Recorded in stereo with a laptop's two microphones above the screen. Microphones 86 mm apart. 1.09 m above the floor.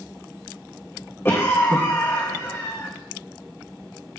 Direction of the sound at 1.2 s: 30° left (ahead or behind).